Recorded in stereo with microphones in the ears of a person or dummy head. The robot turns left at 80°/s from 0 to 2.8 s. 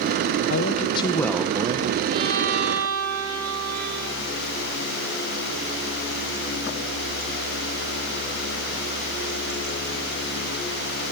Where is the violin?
20° right, 3 m; by 4.0 s 75° right, 3 m.